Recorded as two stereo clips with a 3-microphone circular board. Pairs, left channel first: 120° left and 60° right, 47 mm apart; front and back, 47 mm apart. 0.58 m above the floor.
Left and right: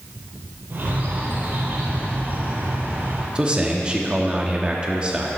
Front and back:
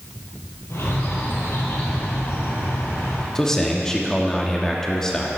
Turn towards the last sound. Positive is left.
turn(degrees=-55)